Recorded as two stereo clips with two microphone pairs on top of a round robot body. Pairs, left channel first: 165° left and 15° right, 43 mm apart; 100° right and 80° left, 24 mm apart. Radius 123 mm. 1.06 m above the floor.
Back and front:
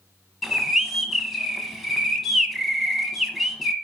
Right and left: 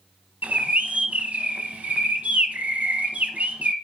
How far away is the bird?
About 0.8 m.